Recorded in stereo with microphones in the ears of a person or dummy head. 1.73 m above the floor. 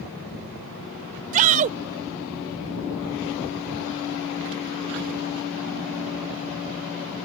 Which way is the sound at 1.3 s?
45° right (ahead or behind).